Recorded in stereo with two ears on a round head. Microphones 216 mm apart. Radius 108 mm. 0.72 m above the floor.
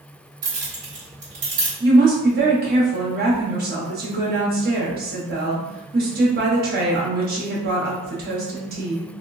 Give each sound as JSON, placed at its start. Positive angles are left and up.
{"t": 0.4, "sound": "keys jangling", "side_deg": -35, "distance_m": 1.3}
{"t": 1.8, "sound": "a woman speaking", "side_deg": -40, "distance_m": 1.0}